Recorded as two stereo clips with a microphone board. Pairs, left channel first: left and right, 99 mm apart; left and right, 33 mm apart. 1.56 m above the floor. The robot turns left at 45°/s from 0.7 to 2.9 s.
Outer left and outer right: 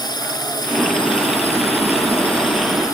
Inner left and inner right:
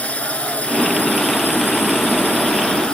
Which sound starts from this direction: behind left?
A drone, at 0.0 s.